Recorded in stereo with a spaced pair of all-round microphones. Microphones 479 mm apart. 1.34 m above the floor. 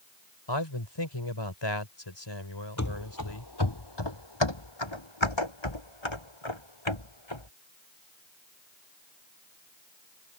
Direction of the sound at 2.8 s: 35° left (ahead or behind).